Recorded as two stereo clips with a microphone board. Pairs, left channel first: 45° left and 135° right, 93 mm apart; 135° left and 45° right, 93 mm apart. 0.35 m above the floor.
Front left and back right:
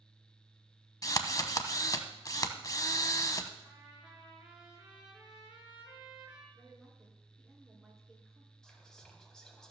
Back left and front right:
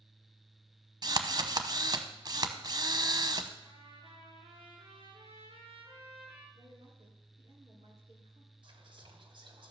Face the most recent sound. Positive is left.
turn(degrees=-40)